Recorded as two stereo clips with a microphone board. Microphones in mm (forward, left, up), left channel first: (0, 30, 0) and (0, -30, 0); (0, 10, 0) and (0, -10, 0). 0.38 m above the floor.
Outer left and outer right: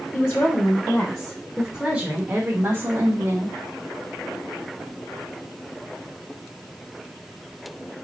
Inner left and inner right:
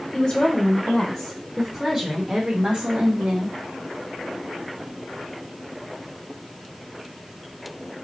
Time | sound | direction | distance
0.1 | a woman speaking | 30° left (ahead or behind) | 1.3 m